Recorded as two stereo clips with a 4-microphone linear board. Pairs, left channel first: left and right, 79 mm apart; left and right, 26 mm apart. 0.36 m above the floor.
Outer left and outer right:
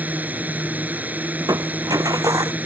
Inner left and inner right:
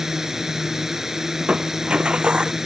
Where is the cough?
I don't hear a cough.